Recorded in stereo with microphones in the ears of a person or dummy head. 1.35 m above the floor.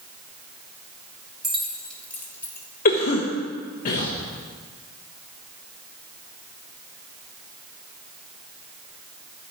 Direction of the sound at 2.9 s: 55° left (ahead or behind).